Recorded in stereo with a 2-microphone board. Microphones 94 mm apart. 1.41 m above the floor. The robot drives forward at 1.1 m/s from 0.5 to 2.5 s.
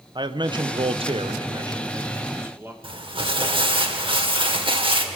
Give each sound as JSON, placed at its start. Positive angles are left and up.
{"t": 0.1, "sound": "a man speaking", "side_deg": -55, "distance_m": 1.0}
{"t": 2.8, "sound": "crumpling", "side_deg": -65, "distance_m": 2.0}